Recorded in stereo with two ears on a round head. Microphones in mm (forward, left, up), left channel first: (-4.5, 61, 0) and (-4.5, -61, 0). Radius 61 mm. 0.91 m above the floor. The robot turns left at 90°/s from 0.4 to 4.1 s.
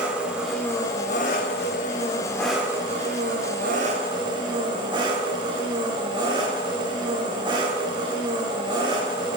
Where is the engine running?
170° right, 1.4 m; by 9.4 s 145° right, 1.4 m.